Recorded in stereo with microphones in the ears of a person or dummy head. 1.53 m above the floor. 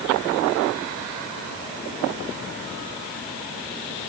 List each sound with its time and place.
Only background noise.